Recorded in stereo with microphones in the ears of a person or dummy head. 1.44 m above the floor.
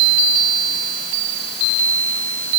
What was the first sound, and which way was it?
Only background noise.